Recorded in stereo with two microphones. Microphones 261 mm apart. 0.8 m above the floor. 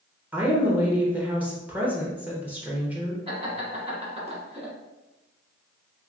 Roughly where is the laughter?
Right.